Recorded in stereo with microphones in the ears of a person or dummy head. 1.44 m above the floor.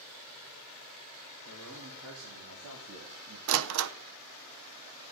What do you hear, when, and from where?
1.4 s a man speaking: 75° right (ahead or behind), 4.5 m; by 3.4 s 70° right (ahead or behind), 2.0 m
3.5 s a door slam: 70° right (ahead or behind), 0.7 m